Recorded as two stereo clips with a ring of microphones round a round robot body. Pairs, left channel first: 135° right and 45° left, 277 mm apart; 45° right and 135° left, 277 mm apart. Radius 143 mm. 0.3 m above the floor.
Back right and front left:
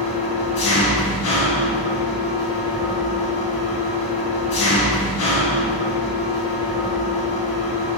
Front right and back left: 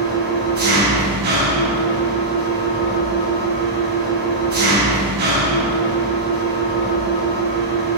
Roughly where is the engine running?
Behind.